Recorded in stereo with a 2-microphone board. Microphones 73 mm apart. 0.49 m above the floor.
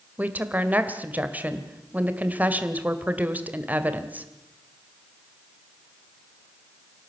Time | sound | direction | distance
0.2 | a woman speaking | 20° right (ahead or behind) | 2.0 m